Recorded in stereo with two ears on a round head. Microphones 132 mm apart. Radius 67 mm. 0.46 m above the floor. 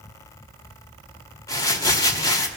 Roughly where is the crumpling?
Left.